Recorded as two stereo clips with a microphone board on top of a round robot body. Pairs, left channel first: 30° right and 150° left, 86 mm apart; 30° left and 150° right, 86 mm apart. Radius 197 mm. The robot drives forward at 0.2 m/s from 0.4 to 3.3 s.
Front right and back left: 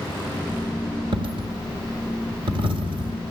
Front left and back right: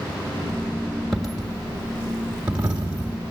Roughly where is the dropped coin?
Behind left.